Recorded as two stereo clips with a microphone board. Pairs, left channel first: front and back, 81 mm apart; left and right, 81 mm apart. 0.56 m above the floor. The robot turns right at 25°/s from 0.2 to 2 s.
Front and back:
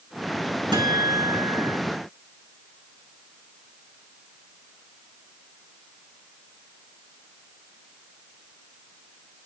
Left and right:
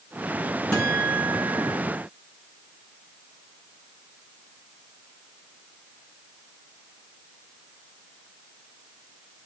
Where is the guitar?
165° left, 6.5 m; by 1.8 s 165° right, 6.5 m.